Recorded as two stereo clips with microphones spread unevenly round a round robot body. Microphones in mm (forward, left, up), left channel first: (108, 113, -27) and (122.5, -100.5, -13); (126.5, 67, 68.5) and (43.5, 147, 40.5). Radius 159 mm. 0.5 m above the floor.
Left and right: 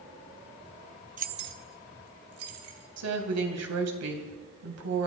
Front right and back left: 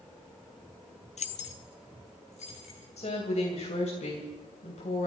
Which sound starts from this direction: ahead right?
Keys jangling, at 1.2 s.